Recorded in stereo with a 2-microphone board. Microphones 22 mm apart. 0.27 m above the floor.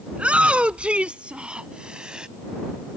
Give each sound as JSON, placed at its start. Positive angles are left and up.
{"t": 0.1, "sound": "a shout", "side_deg": -65}